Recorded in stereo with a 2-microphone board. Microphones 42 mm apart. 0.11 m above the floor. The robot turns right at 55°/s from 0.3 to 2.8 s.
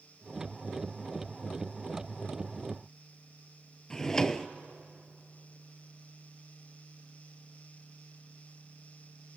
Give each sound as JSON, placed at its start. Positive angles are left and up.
{"t": 3.9, "sound": "a drawer", "side_deg": 15, "distance_m": 0.9}